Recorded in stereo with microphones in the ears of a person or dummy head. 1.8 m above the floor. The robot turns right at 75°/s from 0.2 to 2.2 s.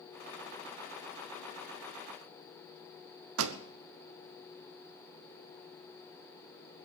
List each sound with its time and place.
3.4 s a pop: 80° right, 1.0 m